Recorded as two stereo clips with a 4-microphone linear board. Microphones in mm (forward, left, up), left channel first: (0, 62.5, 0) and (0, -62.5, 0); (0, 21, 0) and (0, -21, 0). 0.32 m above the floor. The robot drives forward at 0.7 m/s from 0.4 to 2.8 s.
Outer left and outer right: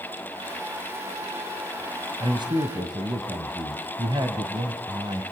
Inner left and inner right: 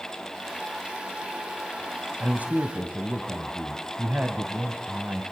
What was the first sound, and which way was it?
A man speaking, 40° right (ahead or behind).